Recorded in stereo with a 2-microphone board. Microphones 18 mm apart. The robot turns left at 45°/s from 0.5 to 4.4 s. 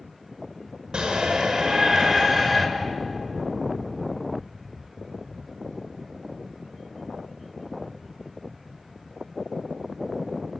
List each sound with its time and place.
0.9 s a shout: 80° right, 5 m; by 2.7 s 160° right, 5 m